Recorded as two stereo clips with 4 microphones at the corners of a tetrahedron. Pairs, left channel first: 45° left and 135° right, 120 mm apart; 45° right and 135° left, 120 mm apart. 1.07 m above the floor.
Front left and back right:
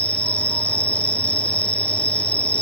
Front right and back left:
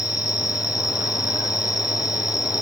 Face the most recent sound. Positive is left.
turn(degrees=-35)